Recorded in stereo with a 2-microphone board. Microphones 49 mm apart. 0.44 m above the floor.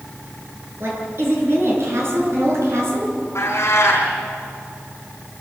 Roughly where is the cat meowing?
Left.